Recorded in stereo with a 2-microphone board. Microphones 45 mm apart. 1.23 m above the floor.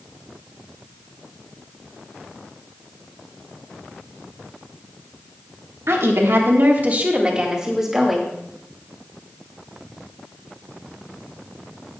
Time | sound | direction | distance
5.9 | a woman speaking | 70° right (ahead or behind) | 1.6 m